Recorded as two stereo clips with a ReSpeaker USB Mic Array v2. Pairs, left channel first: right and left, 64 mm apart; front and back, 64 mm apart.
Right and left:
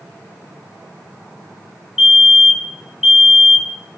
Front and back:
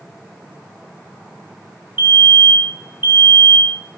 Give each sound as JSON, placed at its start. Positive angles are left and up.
{"t": 2.0, "sound": "a fire alarm", "azimuth_deg": 170, "distance_m": 3.0}